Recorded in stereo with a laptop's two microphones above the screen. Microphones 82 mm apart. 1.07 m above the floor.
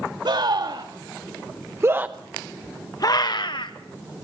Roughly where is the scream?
Right.